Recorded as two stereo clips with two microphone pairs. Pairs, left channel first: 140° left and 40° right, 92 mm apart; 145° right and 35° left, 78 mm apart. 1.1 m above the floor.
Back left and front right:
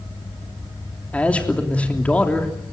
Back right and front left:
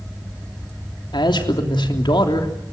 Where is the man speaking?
145° right, 3 m.